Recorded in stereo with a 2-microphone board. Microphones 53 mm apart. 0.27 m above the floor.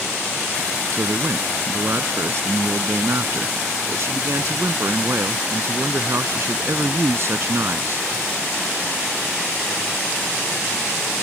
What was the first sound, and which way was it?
A man speaking, 55° right (ahead or behind).